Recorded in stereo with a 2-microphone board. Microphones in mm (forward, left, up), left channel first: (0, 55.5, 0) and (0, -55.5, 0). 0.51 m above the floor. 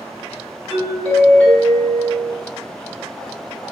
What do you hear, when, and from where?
0.7 s a doorbell: 10° left (ahead or behind), 1.3 m